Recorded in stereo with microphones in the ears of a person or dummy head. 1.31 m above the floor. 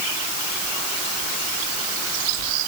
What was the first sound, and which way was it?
Only background noise.